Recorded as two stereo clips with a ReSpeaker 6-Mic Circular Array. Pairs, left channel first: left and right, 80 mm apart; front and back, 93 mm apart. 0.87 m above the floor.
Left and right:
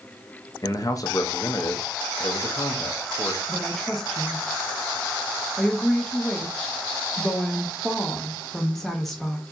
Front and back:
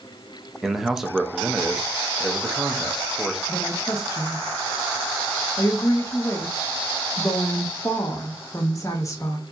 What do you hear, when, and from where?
0.6 s a man speaking: 95° left, 0.7 m
3.5 s a woman speaking: 5° left, 0.6 m